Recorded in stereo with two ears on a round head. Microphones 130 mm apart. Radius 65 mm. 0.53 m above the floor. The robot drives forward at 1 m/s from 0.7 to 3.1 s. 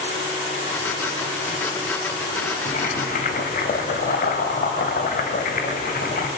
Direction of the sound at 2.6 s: 50° left (ahead or behind).